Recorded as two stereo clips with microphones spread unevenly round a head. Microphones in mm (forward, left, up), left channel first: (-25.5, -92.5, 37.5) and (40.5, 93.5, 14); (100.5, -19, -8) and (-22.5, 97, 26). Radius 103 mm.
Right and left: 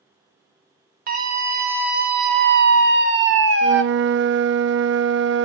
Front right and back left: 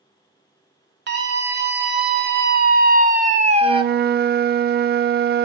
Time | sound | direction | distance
1.1 | a scream | 115° left | 4 m
3.6 | a flute | 105° left | 0.8 m